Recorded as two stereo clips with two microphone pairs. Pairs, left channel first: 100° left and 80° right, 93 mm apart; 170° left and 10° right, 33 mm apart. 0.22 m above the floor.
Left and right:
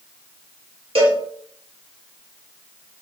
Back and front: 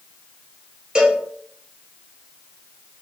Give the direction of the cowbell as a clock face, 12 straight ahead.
3 o'clock.